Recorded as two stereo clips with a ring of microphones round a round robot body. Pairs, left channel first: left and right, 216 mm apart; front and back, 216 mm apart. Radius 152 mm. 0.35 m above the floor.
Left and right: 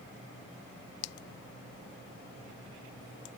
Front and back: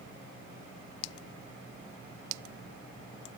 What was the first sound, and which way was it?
Only background noise.